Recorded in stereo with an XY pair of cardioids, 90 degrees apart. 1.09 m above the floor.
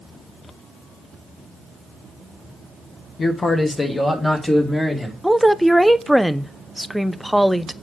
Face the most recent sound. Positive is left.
turn(degrees=0)